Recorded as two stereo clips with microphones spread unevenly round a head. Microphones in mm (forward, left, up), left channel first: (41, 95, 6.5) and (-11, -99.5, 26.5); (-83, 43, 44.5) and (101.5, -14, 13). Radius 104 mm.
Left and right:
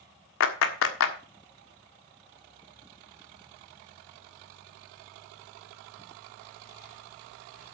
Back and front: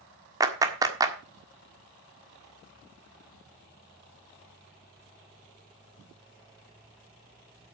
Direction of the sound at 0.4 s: 55° left.